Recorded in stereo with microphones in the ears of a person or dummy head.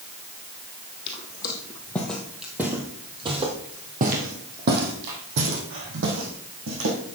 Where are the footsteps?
25° left (ahead or behind), 2 m; by 7.2 s 65° right (ahead or behind), 4 m.